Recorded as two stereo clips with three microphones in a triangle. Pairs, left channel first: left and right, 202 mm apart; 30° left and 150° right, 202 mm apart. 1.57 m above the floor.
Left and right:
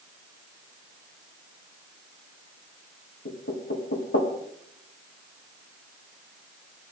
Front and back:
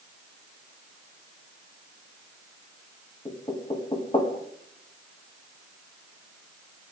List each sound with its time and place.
3.2 s knocking: 95° left, 2 m